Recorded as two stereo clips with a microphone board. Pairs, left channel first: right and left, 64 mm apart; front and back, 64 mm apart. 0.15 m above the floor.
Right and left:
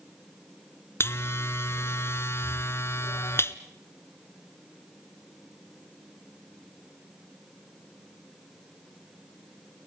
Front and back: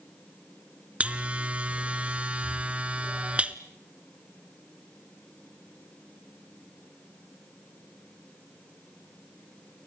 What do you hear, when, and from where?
1.0 s a buzzer: 115° right, 1.1 m